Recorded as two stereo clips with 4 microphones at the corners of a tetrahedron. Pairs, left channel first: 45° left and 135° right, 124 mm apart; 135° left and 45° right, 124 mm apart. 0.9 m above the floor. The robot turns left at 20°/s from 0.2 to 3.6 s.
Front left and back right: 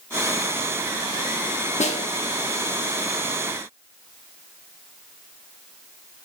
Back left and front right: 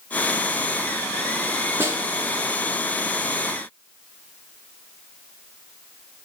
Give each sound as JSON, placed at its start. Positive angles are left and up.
{"t": 1.8, "sound": "a snare drum", "azimuth_deg": 25, "distance_m": 0.8}